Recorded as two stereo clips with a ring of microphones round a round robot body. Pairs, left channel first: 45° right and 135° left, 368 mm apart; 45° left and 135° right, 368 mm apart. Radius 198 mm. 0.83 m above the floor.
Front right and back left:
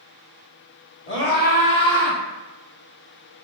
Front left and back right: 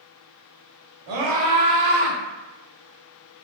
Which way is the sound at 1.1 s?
105° right.